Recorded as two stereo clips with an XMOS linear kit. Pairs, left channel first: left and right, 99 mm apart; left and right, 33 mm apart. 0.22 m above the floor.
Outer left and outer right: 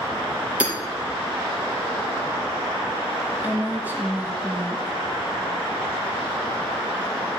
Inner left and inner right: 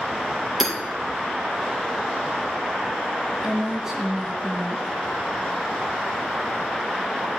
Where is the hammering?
10° right (ahead or behind), 4.5 m.